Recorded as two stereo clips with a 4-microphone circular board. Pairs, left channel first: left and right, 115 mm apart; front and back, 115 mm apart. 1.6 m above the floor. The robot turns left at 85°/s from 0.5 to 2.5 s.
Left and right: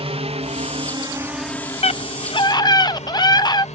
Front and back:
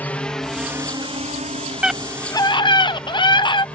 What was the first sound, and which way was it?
A drone, 75° right.